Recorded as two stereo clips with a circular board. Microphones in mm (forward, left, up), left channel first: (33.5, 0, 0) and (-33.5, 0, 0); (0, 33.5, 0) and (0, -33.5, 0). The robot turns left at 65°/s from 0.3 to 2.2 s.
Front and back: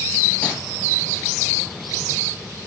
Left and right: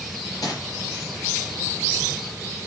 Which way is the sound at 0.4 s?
70° left.